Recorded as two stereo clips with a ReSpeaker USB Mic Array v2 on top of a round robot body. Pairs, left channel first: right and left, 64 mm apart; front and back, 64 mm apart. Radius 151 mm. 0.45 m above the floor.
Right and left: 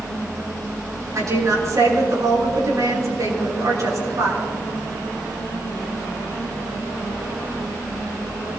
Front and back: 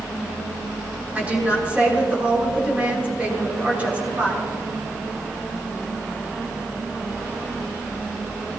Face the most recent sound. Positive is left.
turn(degrees=115)